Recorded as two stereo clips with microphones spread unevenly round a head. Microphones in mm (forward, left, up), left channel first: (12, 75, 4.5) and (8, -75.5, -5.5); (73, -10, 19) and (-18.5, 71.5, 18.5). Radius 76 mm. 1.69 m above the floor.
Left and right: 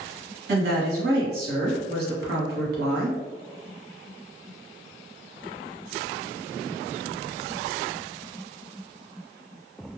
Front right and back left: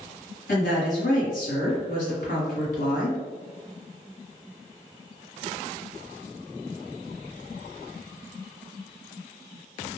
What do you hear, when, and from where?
0.5 s a woman speaking: 75° right, 1.3 m